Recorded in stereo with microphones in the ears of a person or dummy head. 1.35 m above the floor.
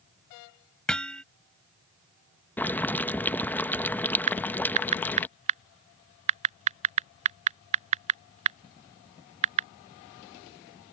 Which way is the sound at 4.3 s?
40° right (ahead or behind).